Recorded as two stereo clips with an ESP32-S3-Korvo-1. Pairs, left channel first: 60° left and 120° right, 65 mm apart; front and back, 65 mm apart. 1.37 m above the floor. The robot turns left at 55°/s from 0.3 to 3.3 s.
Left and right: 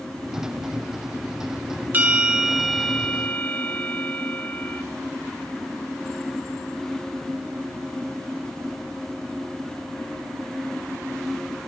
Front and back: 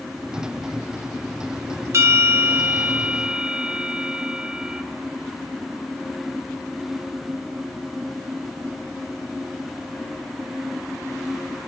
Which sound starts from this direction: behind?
A bell, at 1.9 s.